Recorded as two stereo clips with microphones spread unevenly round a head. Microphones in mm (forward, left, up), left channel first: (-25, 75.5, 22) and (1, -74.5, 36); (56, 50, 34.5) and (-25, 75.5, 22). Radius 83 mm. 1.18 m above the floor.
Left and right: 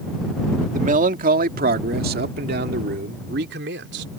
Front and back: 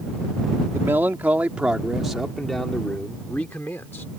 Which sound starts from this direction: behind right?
A man speaking, at 0.7 s.